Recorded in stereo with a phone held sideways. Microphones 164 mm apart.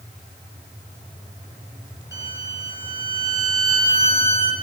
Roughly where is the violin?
Centre.